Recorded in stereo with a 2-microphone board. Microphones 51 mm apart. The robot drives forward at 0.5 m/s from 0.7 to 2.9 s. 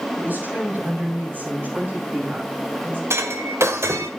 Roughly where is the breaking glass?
Right.